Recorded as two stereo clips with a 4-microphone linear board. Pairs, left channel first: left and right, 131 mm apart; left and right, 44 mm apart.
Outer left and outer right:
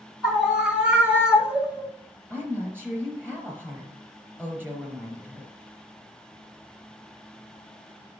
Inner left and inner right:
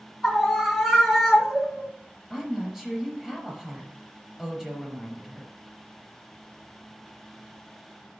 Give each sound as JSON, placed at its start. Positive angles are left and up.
{"t": 0.2, "sound": "a scream", "side_deg": -5, "distance_m": 1.3}
{"t": 2.3, "sound": "a woman speaking", "side_deg": -15, "distance_m": 4.0}